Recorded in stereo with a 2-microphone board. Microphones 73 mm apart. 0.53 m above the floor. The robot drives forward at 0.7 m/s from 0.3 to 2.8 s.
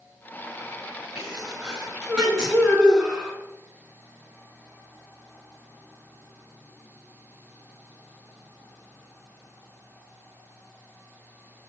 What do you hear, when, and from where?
1.1 s a sneeze: 10° right (ahead or behind), 6 m